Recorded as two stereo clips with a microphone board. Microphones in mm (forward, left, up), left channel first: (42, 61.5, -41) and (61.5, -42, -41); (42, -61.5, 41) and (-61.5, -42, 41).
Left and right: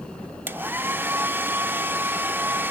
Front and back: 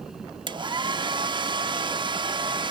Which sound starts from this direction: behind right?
A hair dryer, at 0.5 s.